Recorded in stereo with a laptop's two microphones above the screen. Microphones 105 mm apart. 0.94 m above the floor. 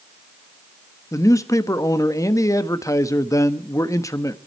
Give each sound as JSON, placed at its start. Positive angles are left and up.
{"t": 1.1, "sound": "a man speaking", "side_deg": 30, "distance_m": 1.1}